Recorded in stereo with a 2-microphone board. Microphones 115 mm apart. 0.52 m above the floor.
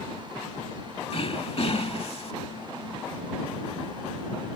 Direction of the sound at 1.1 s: 55° left (ahead or behind).